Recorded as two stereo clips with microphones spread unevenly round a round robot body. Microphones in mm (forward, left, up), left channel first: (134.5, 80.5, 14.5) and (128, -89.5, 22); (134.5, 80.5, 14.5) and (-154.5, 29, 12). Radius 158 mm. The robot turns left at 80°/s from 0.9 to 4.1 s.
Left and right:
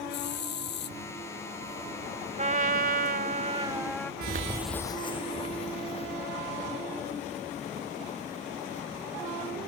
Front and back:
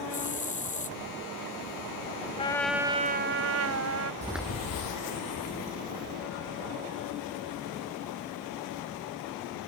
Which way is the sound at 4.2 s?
105° right.